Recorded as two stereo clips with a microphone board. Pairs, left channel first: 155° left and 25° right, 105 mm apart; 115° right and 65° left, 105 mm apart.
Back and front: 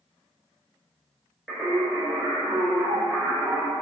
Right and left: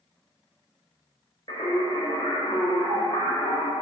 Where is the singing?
115° right, 0.9 m.